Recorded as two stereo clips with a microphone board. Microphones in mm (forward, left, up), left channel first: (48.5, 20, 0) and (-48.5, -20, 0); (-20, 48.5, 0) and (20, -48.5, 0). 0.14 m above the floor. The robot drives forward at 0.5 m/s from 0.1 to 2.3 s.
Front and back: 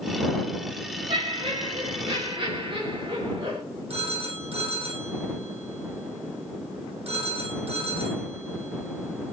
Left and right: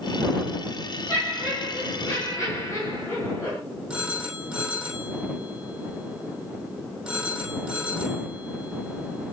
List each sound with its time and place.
1.1 s laughter: 170° left, 5 m
3.9 s a phone ringing: 150° right, 3.5 m